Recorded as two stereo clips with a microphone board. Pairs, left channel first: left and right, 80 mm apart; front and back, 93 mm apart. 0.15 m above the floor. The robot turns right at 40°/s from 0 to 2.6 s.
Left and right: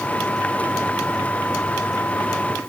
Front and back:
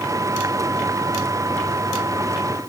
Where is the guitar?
No guitar in this recording.